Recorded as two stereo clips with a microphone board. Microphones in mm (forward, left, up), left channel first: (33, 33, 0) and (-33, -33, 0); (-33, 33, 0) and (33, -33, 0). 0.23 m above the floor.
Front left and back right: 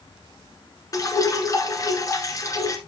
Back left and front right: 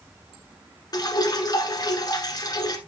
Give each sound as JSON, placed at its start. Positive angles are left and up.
{"t": 0.9, "sound": "dripping", "azimuth_deg": 95, "distance_m": 1.1}